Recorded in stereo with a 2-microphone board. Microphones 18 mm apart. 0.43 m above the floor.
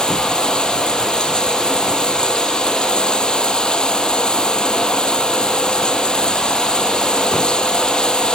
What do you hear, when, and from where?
0.0 s running water: 50° left (ahead or behind)